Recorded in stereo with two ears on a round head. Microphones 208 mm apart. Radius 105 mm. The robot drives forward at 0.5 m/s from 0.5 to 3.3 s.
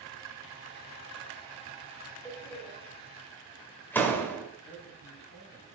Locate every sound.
2.2 s a door slam: 5° left (ahead or behind), 2.5 m; by 4.5 s 10° left (ahead or behind), 2 m
4.6 s a man speaking: 40° left (ahead or behind), 3.5 m